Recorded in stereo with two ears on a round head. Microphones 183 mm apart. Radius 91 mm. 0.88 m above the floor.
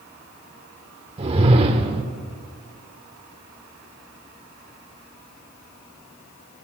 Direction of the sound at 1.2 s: 30° right (ahead or behind).